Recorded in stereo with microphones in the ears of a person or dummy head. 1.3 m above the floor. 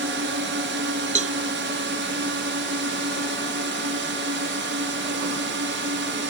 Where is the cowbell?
35° right (ahead or behind).